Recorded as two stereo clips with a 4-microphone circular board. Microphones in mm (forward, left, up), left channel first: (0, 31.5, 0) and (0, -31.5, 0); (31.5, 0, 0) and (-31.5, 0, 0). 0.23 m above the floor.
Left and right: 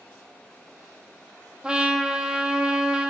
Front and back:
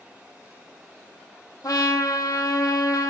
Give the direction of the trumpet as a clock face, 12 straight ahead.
12 o'clock.